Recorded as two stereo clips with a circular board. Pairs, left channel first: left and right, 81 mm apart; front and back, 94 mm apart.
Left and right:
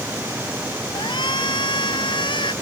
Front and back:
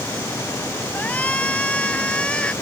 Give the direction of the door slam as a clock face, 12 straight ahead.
No door slam in this recording.